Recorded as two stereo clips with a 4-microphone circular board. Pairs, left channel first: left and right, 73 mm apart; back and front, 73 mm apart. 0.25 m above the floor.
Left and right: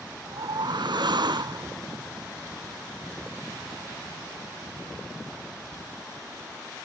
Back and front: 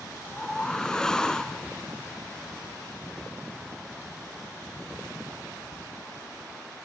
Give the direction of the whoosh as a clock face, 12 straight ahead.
3 o'clock.